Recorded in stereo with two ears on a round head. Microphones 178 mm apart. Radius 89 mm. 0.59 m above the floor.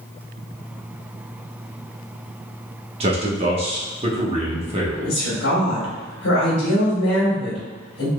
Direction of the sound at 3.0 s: 30° right (ahead or behind).